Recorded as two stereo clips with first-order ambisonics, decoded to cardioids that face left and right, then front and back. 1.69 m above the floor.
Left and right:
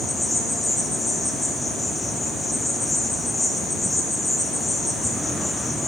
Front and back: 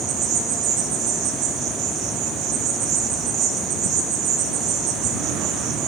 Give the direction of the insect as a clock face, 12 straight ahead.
6 o'clock.